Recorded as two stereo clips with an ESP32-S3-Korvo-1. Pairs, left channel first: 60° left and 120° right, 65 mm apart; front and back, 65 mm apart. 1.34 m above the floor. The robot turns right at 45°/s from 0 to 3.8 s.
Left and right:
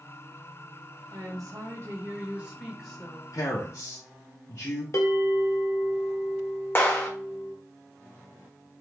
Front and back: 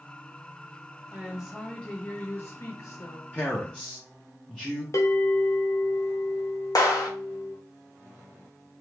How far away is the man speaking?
About 0.6 m.